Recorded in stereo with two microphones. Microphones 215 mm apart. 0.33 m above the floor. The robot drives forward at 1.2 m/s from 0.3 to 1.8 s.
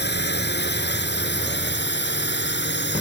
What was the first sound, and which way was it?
A drone, 55° left (ahead or behind).